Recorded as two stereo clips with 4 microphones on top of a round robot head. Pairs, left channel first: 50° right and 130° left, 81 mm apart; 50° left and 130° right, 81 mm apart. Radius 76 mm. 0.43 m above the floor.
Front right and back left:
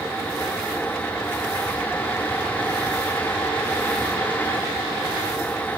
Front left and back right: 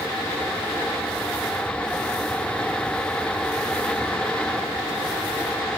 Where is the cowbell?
No cowbell in this recording.